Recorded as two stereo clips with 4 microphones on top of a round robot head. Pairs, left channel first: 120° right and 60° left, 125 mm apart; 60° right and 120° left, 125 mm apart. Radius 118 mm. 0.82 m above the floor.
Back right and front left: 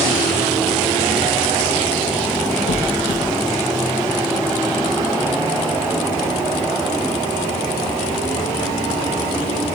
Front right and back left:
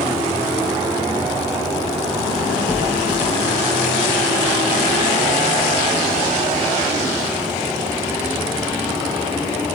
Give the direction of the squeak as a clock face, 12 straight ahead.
5 o'clock.